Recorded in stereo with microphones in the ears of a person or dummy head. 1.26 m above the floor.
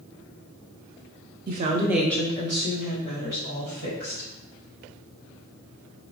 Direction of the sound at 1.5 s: 50° right (ahead or behind).